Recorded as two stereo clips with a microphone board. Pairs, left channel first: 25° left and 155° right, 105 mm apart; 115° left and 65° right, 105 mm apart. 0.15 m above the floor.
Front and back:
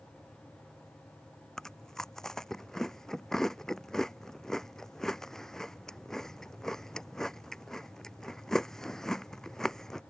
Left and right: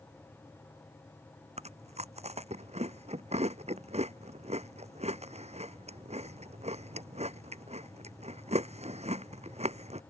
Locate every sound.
1.6 s chewing: 65° right